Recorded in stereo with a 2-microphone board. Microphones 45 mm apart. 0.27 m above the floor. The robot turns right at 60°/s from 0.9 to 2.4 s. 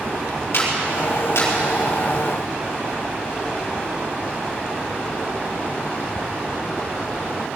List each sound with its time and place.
0.5 s a clap: 70° left (ahead or behind), 5.5 m